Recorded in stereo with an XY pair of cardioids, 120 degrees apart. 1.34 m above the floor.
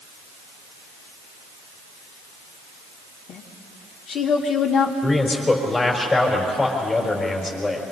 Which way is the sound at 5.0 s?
25° left.